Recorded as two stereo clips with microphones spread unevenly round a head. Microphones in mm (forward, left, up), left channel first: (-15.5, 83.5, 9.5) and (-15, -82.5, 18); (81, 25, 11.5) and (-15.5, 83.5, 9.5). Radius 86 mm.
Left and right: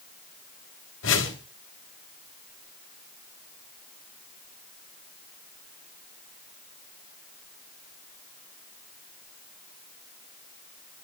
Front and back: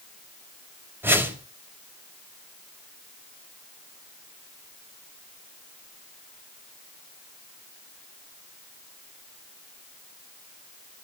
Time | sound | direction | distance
1.0 | a whoosh | 80° left | 4 m